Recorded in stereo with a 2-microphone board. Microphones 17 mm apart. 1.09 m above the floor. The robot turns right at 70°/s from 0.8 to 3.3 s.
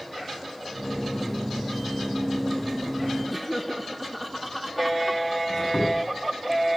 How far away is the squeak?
About 8 m.